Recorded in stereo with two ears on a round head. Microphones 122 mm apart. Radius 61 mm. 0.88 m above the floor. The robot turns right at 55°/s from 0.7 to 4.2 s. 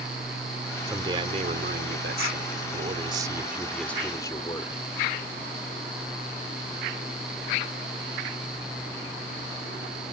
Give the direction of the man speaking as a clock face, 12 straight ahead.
5 o'clock.